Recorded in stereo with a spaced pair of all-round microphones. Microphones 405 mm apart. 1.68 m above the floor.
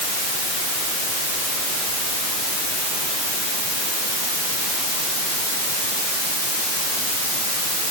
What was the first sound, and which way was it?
Only background noise.